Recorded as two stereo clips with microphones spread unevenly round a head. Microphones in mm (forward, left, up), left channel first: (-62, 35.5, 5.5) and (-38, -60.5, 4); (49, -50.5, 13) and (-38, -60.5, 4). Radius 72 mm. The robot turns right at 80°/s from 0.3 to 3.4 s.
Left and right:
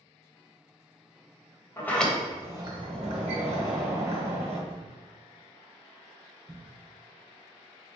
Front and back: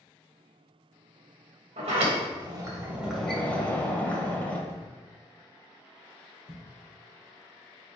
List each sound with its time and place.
1.8 s a sliding door: 165° left, 1.3 m; by 4.6 s 60° right, 1.3 m
4.7 s a thud: 30° right, 1.5 m